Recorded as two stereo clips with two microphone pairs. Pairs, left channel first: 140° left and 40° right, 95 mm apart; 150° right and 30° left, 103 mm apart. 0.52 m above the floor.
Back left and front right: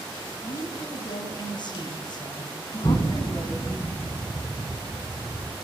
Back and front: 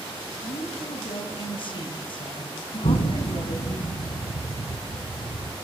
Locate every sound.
0.4 s a woman speaking: 175° left, 4.5 m
2.8 s an explosion: 155° right, 2.5 m